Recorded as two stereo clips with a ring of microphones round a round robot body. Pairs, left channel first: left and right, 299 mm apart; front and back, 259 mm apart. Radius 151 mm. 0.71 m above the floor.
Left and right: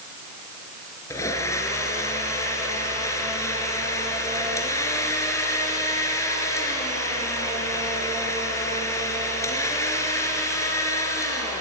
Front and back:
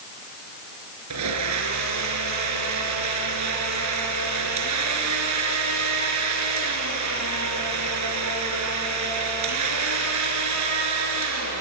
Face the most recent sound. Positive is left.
turn(degrees=170)